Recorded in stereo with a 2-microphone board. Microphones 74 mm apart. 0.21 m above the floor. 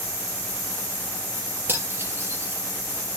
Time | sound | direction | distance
1.7 | cutlery clinking | 30° right (ahead or behind) | 3 m